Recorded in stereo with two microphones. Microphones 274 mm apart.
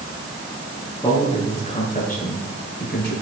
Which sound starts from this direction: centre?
A man speaking, at 1.0 s.